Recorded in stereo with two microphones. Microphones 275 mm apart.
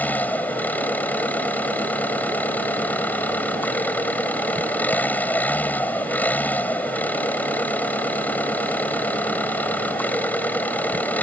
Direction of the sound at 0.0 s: 5° left (ahead or behind).